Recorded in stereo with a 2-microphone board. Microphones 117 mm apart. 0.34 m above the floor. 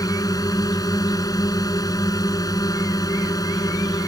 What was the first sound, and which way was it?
A drone, 30° left (ahead or behind).